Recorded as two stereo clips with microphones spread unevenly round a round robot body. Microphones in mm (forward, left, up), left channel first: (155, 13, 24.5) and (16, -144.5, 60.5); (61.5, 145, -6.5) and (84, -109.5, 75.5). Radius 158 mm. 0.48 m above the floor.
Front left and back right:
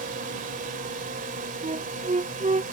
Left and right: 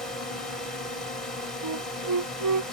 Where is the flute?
75° right.